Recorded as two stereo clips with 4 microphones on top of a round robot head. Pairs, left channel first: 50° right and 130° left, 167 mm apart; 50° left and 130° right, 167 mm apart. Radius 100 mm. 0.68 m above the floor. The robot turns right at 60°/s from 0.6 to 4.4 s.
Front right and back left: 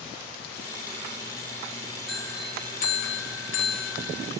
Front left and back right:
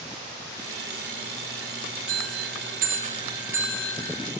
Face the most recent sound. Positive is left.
turn(degrees=0)